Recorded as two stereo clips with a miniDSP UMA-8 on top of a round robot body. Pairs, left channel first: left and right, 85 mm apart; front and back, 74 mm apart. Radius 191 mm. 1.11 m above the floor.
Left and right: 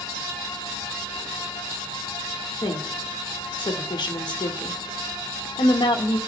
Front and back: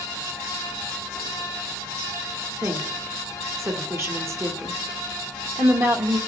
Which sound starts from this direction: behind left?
A woman speaking, at 2.6 s.